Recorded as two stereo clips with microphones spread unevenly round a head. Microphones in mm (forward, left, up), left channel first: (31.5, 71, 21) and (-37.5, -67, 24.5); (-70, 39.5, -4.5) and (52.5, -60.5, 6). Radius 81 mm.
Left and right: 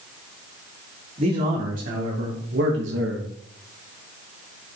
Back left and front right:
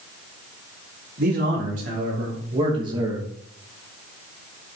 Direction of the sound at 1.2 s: 70° right.